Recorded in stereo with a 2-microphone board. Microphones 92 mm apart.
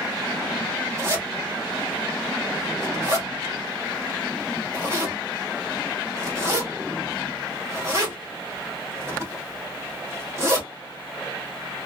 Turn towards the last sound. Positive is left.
turn(degrees=-35)  # may be behind; listen again after turning